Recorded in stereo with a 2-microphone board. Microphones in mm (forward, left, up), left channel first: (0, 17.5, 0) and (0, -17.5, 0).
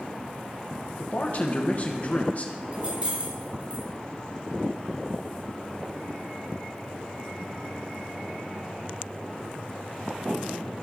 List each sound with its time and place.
1.0 s a man speaking: 45° left (ahead or behind), 1.2 m
2.7 s keys jangling: 40° right (ahead or behind), 3 m